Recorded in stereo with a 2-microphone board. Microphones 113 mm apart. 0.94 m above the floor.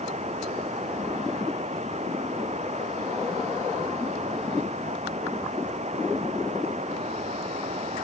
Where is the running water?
85° right.